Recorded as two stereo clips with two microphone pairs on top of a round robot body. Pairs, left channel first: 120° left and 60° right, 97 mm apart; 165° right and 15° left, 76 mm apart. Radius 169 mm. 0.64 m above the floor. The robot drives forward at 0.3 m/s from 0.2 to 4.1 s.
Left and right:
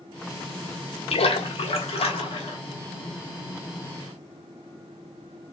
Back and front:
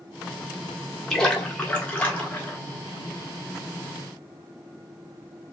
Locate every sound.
1.1 s a splash: 110° left, 1.5 m; by 2.6 s 125° left, 1.7 m